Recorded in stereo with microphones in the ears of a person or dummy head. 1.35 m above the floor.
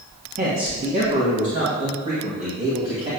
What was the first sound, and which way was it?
A man speaking, 40° right (ahead or behind).